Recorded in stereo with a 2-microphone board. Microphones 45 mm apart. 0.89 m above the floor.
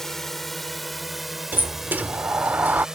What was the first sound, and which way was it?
A drone, 10° left (ahead or behind).